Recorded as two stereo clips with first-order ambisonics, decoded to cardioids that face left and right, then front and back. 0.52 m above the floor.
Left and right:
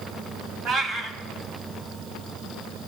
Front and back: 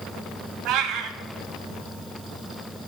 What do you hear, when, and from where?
0.7 s a cat meowing: 150° right, 1.2 m